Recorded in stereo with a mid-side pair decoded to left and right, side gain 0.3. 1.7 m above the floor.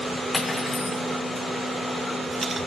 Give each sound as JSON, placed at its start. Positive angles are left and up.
{"t": 0.3, "sound": "cutlery clinking", "azimuth_deg": 50, "distance_m": 3.5}